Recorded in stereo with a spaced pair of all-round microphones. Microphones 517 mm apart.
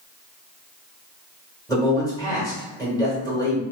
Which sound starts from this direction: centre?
A man speaking, at 1.7 s.